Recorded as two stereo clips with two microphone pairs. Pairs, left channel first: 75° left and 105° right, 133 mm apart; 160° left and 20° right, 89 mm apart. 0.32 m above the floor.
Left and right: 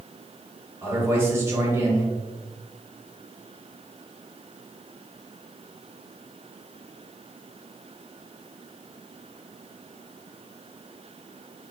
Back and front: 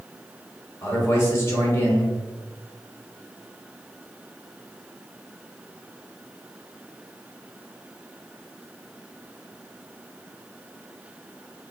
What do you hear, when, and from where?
0.8 s a man speaking: 165° right, 1.3 m